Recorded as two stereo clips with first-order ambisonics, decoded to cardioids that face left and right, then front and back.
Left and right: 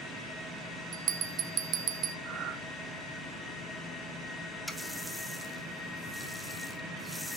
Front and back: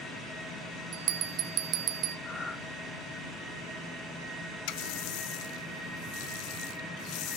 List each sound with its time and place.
0.9 s a bell: 135° right, 1.1 m
2.2 s breathing: 65° right, 1.1 m
4.7 s a running tap: straight ahead, 0.9 m